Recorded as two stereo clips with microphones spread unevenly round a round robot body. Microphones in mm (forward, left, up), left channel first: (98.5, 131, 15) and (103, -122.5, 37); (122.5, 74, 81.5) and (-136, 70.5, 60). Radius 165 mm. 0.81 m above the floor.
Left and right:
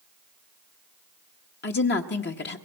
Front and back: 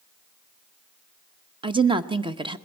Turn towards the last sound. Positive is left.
turn(degrees=120)